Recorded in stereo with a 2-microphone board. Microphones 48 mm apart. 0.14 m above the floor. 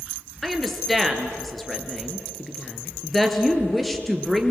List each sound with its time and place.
0.4 s a woman speaking: 5° left (ahead or behind), 2.5 m